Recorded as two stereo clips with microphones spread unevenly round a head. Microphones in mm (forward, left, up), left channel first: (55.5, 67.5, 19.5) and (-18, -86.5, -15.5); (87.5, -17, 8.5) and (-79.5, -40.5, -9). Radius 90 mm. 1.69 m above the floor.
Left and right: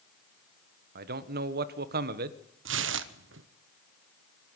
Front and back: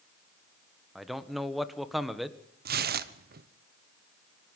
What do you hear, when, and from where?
0.9 s a man speaking: 80° right, 1.5 m
2.6 s tearing paper: 140° right, 1.1 m